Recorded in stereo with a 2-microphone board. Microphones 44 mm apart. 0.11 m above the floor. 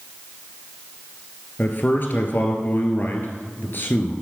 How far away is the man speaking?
About 1.6 m.